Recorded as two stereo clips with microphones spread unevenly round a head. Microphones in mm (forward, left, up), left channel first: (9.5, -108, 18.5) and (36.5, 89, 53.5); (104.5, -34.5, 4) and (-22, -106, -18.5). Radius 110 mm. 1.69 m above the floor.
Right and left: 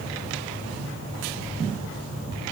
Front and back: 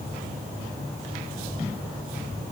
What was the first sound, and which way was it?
Only background noise.